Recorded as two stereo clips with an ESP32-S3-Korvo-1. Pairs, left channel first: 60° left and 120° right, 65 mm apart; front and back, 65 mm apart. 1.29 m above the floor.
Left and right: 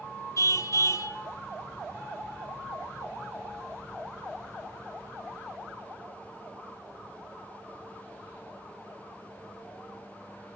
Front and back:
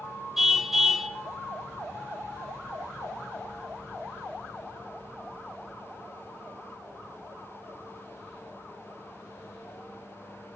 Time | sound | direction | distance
0.4 | a car horn | 95° left | 2 m